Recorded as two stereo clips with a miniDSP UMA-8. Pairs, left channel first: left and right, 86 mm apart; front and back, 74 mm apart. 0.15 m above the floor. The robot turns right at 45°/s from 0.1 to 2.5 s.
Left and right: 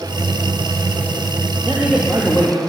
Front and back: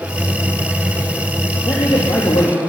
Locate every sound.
1.6 s a man speaking: 20° right, 3.5 m; by 2.6 s 20° left, 3.5 m